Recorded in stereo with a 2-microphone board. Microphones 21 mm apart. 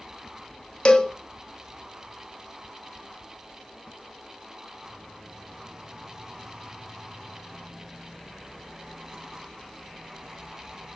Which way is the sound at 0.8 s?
40° left (ahead or behind).